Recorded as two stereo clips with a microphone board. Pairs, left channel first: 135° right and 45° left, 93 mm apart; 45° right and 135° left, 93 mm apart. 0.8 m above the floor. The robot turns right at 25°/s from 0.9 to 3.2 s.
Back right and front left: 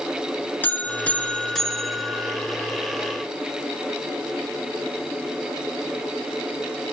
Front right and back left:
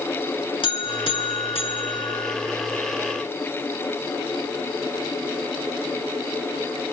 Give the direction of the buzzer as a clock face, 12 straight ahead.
2 o'clock.